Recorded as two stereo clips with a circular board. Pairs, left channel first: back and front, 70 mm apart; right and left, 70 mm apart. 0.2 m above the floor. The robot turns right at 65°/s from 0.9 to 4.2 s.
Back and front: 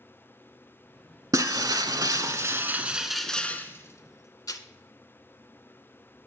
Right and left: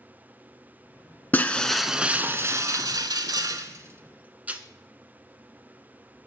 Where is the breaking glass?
30° right, 0.6 m; by 4.6 s 155° left, 0.6 m.